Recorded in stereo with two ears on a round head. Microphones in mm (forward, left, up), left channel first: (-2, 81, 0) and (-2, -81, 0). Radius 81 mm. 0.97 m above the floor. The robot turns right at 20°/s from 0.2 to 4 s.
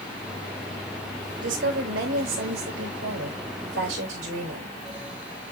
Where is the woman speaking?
110° right, 4.5 m; by 4.8 s 60° right, 4.5 m.